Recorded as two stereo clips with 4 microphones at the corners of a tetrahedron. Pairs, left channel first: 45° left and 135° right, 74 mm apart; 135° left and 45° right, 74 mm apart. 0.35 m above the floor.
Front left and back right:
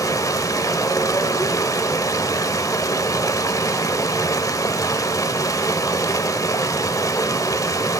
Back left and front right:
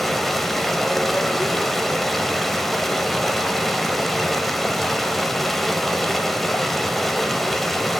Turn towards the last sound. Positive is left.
turn(degrees=50)